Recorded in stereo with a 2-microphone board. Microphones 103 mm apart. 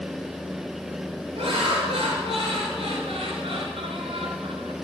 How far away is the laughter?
About 7 m.